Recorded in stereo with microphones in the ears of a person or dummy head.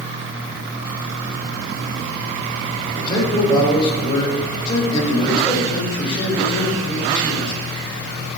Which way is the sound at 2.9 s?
25° left (ahead or behind).